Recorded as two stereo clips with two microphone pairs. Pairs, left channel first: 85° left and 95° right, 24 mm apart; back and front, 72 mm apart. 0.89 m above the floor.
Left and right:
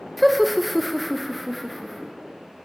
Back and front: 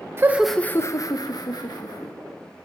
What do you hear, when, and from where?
0.2 s laughter: 5° right, 0.6 m; by 2.1 s 175° left, 2.0 m